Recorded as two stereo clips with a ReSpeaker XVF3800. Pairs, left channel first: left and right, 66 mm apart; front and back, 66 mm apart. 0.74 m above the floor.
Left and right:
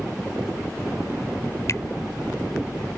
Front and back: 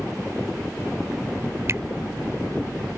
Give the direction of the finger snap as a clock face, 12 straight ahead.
8 o'clock.